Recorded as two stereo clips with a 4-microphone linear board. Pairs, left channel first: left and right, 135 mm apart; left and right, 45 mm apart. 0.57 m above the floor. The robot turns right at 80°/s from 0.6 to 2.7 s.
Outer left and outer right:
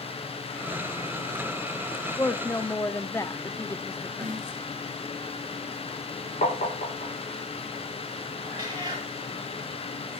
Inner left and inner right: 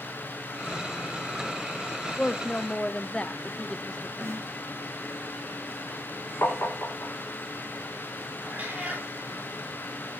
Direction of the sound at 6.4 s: 65° left (ahead or behind).